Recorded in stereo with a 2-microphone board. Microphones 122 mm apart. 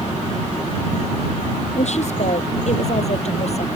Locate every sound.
1.8 s a woman speaking: 60° left (ahead or behind); by 3.7 s 55° left (ahead or behind)